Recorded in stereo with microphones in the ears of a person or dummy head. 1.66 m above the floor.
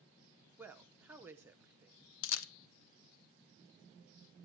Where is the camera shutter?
80° left, 0.5 m.